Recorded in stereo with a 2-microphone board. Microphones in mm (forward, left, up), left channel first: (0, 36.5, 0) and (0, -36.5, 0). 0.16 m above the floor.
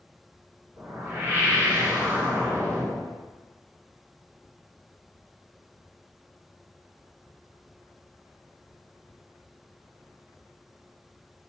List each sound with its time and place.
0.8 s a whoosh: 25° right (ahead or behind), 2.5 m